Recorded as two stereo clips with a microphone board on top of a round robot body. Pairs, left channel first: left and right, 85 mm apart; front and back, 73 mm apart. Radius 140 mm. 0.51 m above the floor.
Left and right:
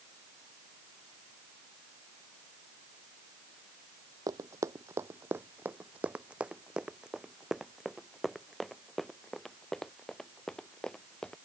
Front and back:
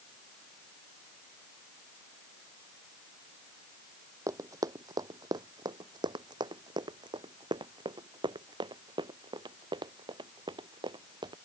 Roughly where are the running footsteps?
Behind right.